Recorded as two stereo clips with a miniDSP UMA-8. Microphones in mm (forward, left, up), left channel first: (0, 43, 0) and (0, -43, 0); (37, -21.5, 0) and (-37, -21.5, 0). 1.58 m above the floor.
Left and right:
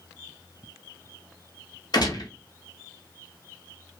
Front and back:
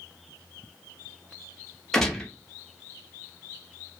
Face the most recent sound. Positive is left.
turn(degrees=80)